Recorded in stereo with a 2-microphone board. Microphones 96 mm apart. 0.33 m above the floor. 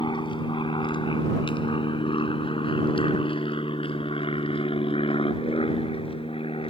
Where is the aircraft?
55° left (ahead or behind); by 6.7 s 75° left (ahead or behind).